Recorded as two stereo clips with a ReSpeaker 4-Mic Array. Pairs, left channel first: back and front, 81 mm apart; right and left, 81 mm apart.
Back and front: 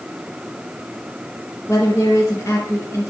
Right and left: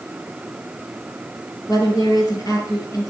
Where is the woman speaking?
125° right, 5.5 m.